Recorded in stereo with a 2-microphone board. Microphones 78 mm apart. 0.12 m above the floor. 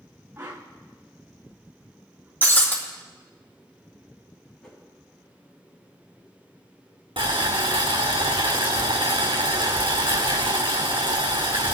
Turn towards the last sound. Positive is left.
turn(degrees=-85)